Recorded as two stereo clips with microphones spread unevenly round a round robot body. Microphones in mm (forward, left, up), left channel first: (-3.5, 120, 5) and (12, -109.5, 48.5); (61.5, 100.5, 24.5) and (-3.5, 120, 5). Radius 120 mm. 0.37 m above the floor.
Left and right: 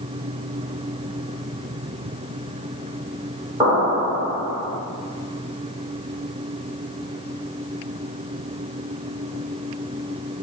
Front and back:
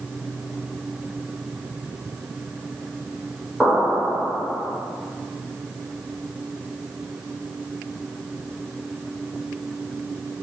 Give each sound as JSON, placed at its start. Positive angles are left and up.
{"t": 3.6, "sound": "an explosion", "azimuth_deg": -160, "distance_m": 1.5}